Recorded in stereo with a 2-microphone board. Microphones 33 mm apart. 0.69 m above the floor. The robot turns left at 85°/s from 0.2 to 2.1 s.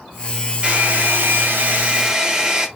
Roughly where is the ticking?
No ticking in this recording.